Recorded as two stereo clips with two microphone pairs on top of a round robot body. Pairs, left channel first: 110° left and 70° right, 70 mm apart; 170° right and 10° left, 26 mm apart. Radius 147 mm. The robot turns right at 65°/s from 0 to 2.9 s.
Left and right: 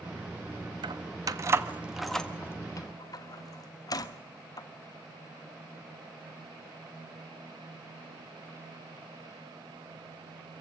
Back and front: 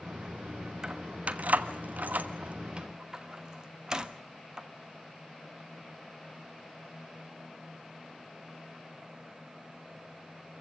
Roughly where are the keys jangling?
Ahead right.